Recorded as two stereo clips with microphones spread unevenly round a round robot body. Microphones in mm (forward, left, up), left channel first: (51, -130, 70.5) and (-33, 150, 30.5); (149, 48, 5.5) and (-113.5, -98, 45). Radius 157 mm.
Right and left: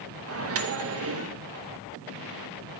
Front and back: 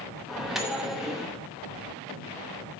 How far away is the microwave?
About 0.7 m.